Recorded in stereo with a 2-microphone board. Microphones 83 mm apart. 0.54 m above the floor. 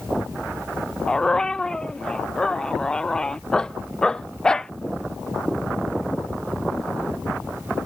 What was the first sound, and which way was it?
A dog barking, 10° left (ahead or behind).